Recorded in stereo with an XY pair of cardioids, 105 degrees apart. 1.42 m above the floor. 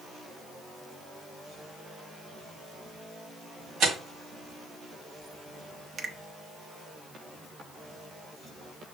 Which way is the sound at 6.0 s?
50° right.